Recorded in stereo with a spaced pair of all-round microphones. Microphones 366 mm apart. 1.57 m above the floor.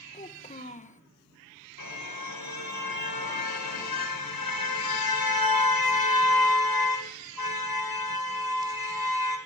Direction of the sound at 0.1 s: 20° left (ahead or behind).